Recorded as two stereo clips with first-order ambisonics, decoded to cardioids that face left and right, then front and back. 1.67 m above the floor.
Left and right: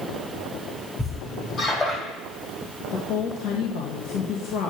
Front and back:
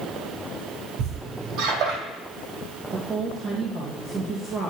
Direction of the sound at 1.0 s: 150° left.